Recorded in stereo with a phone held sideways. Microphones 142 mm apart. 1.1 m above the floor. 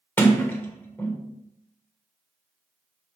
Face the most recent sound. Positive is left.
turn(degrees=15)  # may be behind; listen again after turning